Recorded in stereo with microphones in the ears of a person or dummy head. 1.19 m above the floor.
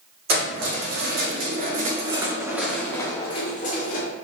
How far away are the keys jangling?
About 1.7 m.